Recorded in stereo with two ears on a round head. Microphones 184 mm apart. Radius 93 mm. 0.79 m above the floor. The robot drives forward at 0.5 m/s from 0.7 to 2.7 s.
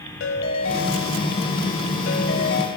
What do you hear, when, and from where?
0.2 s a ringtone: 70° left (ahead or behind), 1.6 m